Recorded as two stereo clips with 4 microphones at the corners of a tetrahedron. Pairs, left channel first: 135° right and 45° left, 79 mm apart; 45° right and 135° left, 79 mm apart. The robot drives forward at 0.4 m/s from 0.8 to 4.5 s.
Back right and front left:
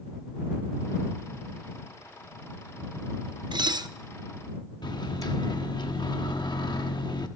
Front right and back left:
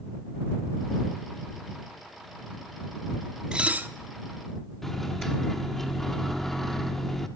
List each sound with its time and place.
3.5 s dishes clattering: 55° left, 0.5 m; by 3.9 s 75° left, 0.5 m
4.8 s a microwave: 130° right, 1.0 m